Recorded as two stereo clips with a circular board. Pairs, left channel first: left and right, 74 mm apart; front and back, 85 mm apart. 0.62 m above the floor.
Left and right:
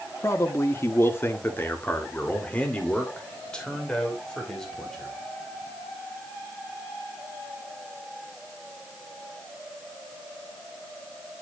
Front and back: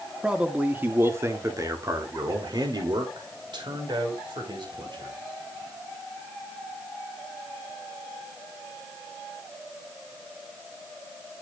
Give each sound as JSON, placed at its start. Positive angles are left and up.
{"t": 0.2, "sound": "a man speaking", "azimuth_deg": 105, "distance_m": 1.5}